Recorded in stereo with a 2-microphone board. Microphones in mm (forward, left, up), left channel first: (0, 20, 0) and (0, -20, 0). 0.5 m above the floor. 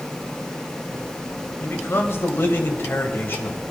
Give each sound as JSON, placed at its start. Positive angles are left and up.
{"t": 1.6, "sound": "a man speaking", "side_deg": 65, "distance_m": 1.9}